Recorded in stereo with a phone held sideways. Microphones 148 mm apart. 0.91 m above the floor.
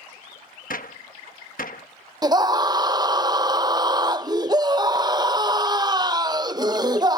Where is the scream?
25° right (ahead or behind).